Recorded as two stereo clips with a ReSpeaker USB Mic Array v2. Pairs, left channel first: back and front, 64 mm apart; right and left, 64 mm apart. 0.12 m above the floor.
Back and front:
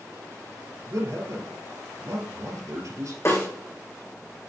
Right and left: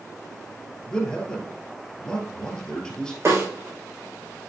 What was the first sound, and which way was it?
A man speaking, 15° right.